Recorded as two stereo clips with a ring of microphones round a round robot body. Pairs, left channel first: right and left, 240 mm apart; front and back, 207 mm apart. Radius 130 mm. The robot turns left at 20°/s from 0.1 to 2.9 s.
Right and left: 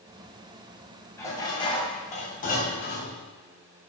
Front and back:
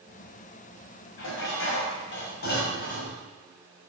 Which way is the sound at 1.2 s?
10° right.